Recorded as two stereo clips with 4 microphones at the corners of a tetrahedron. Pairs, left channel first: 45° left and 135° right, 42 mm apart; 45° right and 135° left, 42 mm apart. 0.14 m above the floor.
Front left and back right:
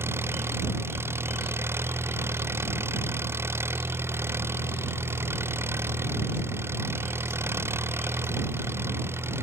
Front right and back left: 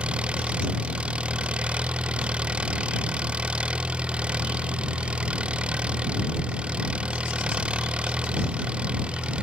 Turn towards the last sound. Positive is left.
turn(degrees=-160)